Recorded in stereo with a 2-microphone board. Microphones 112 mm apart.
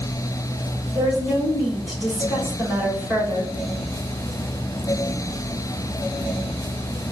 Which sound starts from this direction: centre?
A woman speaking, at 0.9 s.